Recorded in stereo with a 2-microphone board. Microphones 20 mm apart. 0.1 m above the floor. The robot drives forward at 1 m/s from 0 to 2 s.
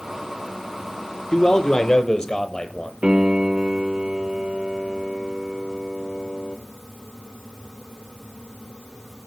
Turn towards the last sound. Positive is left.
turn(degrees=-55)  # may be behind; listen again after turning